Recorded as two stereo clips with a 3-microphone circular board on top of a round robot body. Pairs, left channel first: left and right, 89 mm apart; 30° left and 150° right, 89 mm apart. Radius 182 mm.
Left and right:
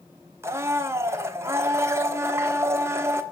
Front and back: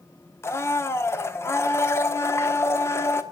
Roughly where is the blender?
Ahead right.